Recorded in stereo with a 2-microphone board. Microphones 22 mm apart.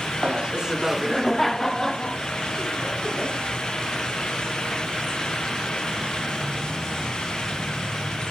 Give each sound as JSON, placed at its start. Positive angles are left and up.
{"t": 0.2, "sound": "laughter", "side_deg": -50, "distance_m": 0.9}